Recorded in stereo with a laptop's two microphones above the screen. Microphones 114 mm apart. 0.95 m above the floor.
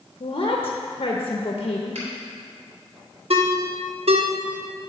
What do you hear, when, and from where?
0.2 s a woman speaking: 55° left (ahead or behind), 0.8 m
1.9 s a finger snap: 70° right (ahead or behind), 3.5 m
3.3 s a ringtone: 65° right (ahead or behind), 0.9 m